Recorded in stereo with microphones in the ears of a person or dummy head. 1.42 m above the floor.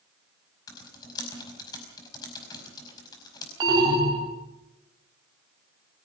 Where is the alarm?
25° right (ahead or behind), 4 m.